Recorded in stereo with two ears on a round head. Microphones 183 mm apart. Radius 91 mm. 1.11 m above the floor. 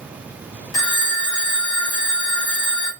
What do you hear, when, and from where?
0.7 s a phone ringing: 75° left (ahead or behind), 0.9 m